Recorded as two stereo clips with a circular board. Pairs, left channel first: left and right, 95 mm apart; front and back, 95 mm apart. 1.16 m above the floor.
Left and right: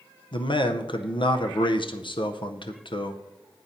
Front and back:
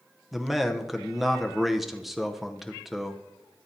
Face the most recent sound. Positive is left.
turn(degrees=95)